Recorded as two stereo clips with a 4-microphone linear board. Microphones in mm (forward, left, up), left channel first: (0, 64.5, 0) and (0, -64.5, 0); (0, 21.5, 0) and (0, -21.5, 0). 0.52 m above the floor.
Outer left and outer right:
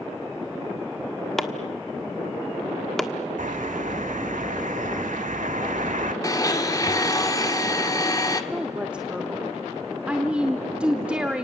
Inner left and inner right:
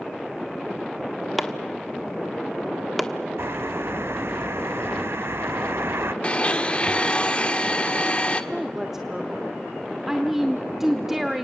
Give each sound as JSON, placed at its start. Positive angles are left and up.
{"t": 1.4, "sound": "chopping", "side_deg": 0, "distance_m": 1.3}
{"t": 3.4, "sound": "a bird", "side_deg": -80, "distance_m": 1.2}
{"t": 6.2, "sound": "a blender", "side_deg": 30, "distance_m": 1.4}
{"t": 8.5, "sound": "a woman speaking", "side_deg": -10, "distance_m": 1.2}